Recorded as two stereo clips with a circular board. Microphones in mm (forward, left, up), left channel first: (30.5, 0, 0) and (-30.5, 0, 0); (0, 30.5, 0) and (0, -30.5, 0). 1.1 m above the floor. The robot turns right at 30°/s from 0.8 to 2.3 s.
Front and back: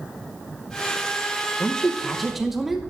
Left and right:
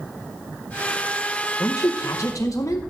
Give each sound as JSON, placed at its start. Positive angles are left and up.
{"t": 1.6, "sound": "a woman speaking", "azimuth_deg": 70, "distance_m": 1.1}